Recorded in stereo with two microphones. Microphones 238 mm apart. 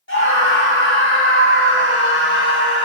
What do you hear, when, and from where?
0.1 s a scream: 55° left (ahead or behind), 1.7 m